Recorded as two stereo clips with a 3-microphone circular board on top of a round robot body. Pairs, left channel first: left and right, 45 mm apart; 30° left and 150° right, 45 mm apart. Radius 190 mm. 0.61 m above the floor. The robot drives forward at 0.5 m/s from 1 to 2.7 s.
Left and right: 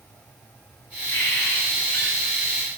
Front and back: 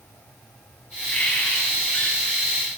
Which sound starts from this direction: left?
A bird, at 1.1 s.